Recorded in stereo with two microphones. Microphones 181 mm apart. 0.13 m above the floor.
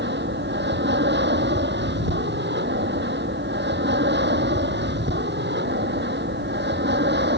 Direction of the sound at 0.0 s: 75° right (ahead or behind).